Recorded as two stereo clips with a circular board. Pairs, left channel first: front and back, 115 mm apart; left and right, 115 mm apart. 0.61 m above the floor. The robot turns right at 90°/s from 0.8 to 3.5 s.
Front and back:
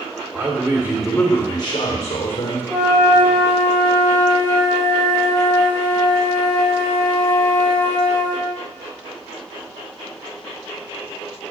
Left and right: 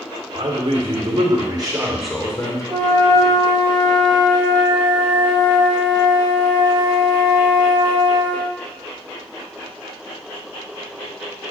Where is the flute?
85° right, 4 m; by 8.5 s 15° right, 4 m.